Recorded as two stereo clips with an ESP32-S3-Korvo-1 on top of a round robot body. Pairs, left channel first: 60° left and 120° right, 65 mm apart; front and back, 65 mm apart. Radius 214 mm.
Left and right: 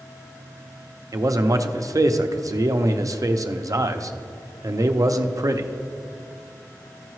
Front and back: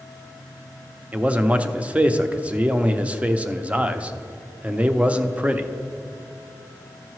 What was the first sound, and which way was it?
A man speaking, 115° right.